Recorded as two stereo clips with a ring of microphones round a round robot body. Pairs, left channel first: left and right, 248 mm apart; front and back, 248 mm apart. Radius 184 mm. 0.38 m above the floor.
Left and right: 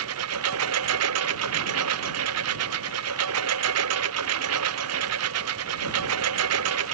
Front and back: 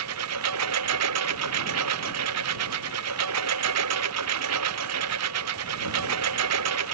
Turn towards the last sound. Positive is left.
turn(degrees=-135)